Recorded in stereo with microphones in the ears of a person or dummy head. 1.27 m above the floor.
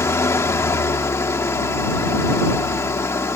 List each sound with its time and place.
0.0 s an engine running: 15° left (ahead or behind)